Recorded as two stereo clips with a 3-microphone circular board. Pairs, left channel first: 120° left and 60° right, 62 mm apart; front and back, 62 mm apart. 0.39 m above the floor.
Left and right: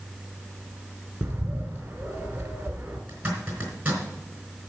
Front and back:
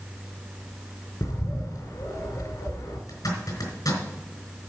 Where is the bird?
Straight ahead, 1.9 m.